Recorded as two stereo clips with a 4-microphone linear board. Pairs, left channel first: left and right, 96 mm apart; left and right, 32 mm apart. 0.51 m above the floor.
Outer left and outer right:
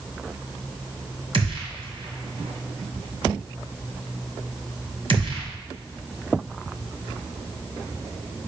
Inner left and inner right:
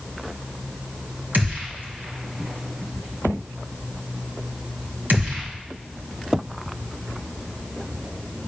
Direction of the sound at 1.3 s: 75° right (ahead or behind).